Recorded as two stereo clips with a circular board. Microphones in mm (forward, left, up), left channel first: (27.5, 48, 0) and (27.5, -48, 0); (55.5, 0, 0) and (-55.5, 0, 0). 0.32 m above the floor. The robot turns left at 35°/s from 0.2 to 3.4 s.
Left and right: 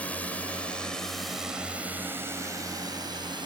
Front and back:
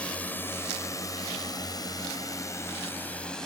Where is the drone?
50° left; by 3.5 s 85° right.